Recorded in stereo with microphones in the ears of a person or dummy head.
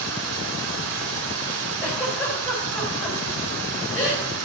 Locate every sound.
0.0 s running water: 65° right (ahead or behind), 3 m
1.8 s a giggle: 10° left (ahead or behind), 7 m